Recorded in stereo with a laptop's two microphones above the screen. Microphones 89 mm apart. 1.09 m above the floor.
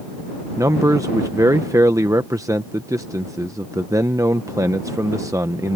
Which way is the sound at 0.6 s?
40° right (ahead or behind).